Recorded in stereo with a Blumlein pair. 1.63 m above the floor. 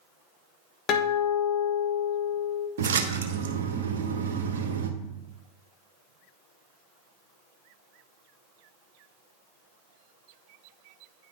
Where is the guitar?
35° left, 1.0 m.